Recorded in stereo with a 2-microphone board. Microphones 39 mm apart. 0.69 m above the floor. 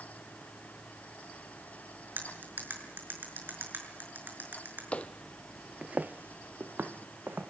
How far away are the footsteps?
About 1.4 m.